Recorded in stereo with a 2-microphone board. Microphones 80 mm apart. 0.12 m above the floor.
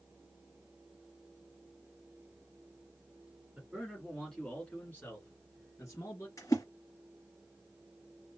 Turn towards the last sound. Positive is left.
turn(degrees=45)  # may be behind; listen again after turning